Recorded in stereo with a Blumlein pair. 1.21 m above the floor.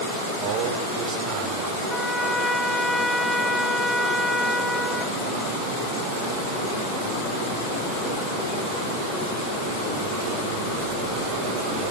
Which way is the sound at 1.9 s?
Straight ahead.